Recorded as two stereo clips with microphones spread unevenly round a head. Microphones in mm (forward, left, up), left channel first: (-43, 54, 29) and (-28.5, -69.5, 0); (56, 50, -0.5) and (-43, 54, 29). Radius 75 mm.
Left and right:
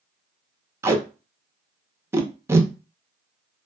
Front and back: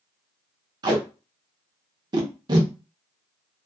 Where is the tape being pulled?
125° right, 0.6 m.